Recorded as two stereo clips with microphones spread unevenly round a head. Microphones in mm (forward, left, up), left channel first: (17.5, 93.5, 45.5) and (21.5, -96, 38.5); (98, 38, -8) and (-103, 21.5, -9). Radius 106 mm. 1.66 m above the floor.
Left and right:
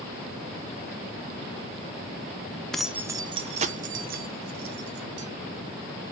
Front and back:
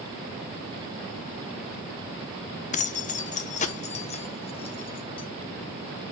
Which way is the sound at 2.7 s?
10° left.